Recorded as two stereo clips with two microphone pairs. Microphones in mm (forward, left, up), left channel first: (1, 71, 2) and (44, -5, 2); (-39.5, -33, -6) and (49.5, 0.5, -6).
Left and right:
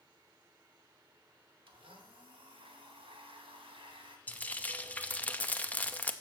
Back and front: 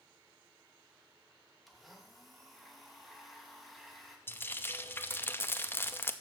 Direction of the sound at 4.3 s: 165° left.